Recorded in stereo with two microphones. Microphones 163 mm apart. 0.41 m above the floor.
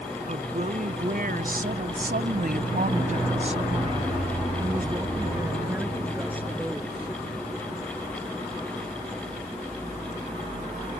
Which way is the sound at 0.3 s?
50° right (ahead or behind).